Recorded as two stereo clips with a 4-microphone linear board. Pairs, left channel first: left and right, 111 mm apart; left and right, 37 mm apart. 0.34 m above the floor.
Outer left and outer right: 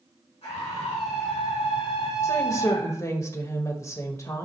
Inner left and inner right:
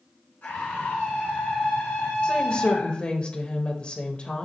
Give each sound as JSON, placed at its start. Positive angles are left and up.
{"t": 0.4, "sound": "a scream", "side_deg": 65, "distance_m": 3.5}
{"t": 2.2, "sound": "a woman speaking", "side_deg": 30, "distance_m": 1.1}